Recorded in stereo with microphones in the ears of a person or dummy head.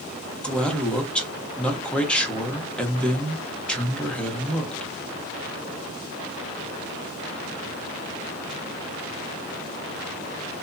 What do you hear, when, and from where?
0.4 s a man speaking: 5° left (ahead or behind), 0.8 m